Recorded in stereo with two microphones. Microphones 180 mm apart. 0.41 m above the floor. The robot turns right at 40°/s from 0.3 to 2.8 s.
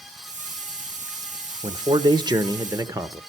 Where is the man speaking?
25° right (ahead or behind), 1.0 m; by 3.2 s 20° right (ahead or behind), 1.0 m.